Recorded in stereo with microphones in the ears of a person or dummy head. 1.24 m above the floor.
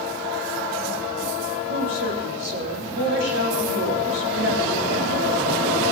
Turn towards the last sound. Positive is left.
turn(degrees=-90)